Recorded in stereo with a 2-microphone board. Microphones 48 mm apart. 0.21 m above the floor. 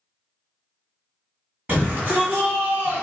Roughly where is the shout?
Right.